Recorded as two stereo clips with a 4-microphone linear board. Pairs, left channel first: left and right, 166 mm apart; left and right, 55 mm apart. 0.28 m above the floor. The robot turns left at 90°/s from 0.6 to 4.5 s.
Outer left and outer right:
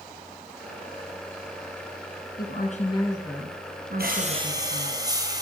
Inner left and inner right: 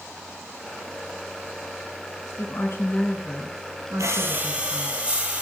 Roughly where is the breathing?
Right.